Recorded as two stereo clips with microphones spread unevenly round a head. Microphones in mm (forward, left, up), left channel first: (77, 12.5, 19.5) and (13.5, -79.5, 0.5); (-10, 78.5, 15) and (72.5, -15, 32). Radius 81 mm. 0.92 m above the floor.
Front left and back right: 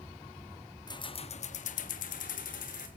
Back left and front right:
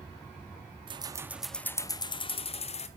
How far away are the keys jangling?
About 1.0 m.